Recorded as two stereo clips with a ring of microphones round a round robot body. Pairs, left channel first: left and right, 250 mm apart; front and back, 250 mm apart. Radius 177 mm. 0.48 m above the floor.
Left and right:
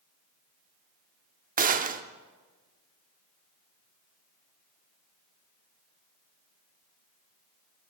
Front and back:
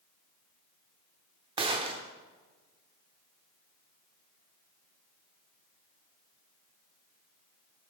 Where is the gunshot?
120° right, 0.7 m.